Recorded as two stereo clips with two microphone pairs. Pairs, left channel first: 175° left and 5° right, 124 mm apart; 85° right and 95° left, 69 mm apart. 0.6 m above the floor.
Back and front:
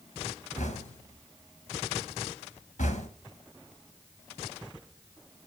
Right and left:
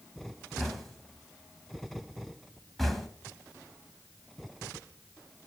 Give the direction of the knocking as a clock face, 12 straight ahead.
6 o'clock.